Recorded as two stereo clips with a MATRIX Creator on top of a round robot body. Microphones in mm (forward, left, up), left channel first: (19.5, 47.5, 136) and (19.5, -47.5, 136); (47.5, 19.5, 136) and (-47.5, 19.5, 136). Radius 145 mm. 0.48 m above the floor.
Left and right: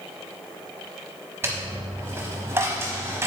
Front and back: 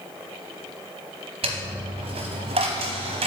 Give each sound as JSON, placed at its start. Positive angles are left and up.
{"t": 1.4, "sound": "a dropped coin", "azimuth_deg": -155, "distance_m": 0.8}